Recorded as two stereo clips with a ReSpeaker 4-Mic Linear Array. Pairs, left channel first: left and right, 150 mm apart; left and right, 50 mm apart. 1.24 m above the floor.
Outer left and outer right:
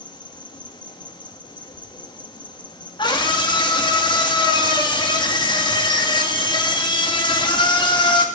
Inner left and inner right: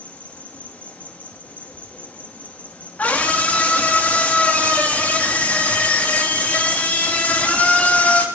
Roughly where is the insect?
Left.